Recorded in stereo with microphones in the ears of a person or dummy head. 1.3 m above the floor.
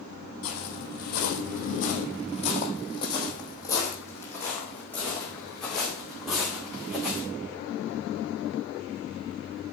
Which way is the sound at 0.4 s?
60° left (ahead or behind).